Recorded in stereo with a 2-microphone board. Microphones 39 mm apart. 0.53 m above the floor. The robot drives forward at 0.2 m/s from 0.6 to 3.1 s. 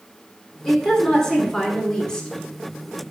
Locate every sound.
0.7 s a woman speaking: 15° left (ahead or behind), 1.4 m; by 2.3 s 20° left (ahead or behind), 1.1 m